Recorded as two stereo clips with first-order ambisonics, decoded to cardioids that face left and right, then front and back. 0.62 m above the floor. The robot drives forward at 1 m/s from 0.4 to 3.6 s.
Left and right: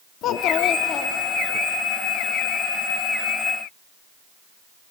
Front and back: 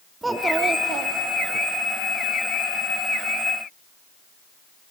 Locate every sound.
0.2 s a child speaking: 100° left, 0.6 m; by 1.6 s 160° left, 1.4 m